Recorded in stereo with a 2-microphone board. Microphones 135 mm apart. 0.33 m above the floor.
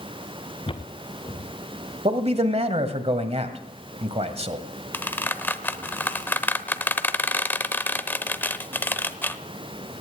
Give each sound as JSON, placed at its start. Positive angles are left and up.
{"t": 0.7, "sound": "footsteps", "side_deg": 40, "distance_m": 1.5}
{"t": 2.0, "sound": "a man speaking", "side_deg": -50, "distance_m": 1.7}
{"t": 4.9, "sound": "a squeak", "side_deg": 15, "distance_m": 0.7}